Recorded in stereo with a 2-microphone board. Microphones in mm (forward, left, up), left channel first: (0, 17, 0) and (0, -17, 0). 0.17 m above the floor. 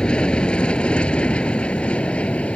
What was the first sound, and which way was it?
An aircraft, 30° left (ahead or behind).